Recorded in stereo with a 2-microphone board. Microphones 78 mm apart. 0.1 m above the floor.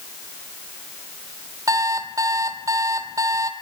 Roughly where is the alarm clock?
Right.